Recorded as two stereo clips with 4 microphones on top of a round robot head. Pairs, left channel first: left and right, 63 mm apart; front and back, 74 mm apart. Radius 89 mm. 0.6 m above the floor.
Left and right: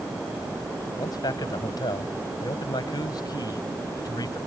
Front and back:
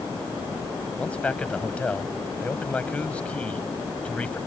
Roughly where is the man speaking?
Left.